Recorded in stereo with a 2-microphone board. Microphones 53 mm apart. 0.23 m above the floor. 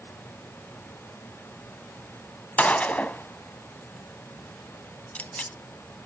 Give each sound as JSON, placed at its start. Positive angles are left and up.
{"t": 2.6, "sound": "a gunshot", "side_deg": 30, "distance_m": 0.6}